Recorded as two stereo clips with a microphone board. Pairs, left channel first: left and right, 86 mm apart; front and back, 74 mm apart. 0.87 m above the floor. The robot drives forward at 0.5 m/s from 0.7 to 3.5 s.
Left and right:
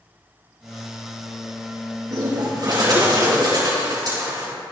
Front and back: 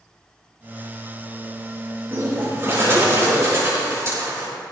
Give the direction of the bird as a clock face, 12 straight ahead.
4 o'clock.